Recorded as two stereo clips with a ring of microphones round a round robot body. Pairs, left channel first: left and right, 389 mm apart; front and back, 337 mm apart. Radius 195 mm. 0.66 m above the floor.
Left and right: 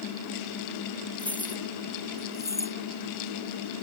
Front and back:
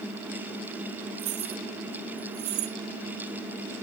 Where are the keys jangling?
175° left; by 2.8 s 170° left.